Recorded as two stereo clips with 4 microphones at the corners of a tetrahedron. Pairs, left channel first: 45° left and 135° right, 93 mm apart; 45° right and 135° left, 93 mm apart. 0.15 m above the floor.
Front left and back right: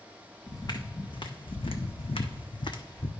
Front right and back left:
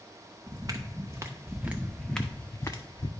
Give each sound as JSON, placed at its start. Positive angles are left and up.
{"t": 0.5, "sound": "footsteps", "azimuth_deg": 90, "distance_m": 1.4}